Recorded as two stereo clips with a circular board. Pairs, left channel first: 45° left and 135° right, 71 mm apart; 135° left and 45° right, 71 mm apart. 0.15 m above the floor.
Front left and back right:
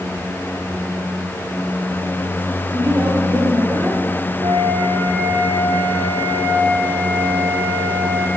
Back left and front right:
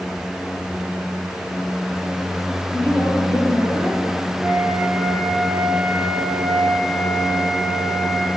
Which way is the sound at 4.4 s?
130° right.